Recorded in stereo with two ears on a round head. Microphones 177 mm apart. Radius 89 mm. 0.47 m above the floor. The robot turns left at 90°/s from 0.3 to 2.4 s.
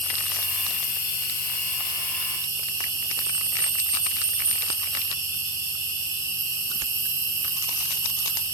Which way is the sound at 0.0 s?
170° left.